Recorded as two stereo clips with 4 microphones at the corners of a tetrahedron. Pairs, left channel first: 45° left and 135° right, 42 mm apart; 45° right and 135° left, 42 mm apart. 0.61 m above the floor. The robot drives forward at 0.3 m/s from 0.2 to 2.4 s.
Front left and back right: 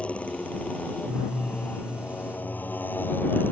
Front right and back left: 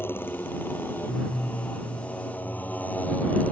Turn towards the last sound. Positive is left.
turn(degrees=10)